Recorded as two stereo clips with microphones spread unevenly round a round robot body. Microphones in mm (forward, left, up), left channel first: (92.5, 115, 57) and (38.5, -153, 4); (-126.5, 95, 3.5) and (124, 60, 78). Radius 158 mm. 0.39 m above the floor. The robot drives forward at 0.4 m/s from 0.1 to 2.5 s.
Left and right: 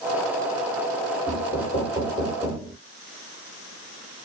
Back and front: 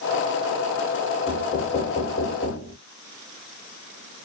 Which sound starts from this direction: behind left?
Knocking, at 1.3 s.